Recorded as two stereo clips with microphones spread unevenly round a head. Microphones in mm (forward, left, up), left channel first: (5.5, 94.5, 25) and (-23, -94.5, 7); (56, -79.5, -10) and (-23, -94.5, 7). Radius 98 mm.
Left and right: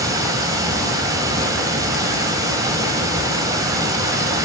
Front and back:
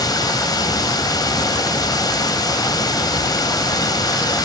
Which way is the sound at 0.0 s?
25° right.